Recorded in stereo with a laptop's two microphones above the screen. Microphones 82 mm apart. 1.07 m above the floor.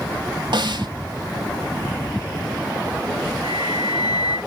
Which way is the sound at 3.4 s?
60° left (ahead or behind).